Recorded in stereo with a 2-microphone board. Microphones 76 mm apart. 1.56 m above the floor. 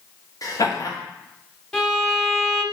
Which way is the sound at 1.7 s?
15° left (ahead or behind).